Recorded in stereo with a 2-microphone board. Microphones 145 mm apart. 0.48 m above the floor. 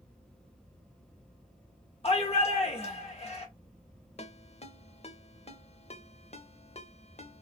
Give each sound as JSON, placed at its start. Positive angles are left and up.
{"t": 2.0, "sound": "a shout", "side_deg": 40, "distance_m": 1.1}
{"t": 4.2, "sound": "a ringtone", "side_deg": 45, "distance_m": 0.6}